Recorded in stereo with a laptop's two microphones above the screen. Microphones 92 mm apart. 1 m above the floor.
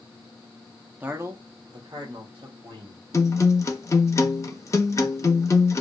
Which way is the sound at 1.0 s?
15° right (ahead or behind).